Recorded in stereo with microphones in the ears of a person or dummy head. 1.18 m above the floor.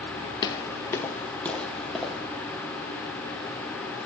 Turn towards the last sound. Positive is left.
turn(degrees=-5)  # may be behind; listen again after turning